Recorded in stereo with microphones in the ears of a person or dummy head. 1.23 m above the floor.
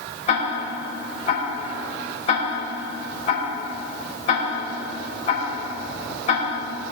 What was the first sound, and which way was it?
Ticking, 30° left (ahead or behind).